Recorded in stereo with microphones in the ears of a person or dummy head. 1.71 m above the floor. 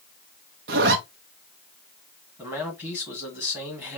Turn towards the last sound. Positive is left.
turn(degrees=-5)  # may be behind; listen again after turning